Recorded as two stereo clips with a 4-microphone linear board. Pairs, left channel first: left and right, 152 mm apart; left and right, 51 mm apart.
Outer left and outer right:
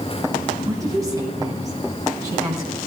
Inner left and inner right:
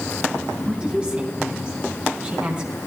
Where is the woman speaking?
20° right (ahead or behind), 2.5 m.